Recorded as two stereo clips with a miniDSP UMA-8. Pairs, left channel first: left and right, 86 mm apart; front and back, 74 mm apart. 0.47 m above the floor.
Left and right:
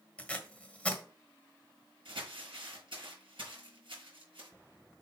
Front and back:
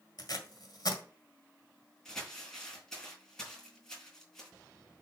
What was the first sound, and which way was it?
Tape being pulled, 15° left.